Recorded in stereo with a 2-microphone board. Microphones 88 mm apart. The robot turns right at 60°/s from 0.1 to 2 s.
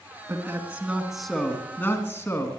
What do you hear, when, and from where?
0.3 s a man speaking: 55° right, 1.9 m; by 2.5 s 50° left, 1.9 m